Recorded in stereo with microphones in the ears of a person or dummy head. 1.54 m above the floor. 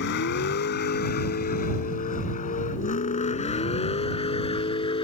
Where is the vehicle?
60° left (ahead or behind); by 5.0 s 30° left (ahead or behind).